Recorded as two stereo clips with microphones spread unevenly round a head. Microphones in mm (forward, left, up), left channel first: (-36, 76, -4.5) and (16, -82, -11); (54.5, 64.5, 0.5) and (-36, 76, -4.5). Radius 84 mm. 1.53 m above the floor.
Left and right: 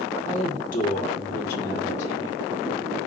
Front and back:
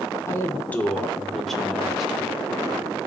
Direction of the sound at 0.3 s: 50° left.